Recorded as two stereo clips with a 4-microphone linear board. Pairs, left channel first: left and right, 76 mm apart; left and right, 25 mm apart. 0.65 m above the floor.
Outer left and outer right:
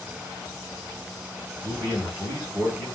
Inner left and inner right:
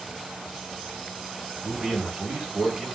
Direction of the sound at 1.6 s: 25° right (ahead or behind).